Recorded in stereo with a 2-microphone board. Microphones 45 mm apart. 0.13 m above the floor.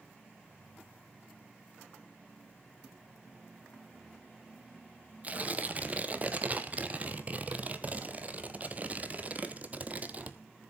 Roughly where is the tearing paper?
Right.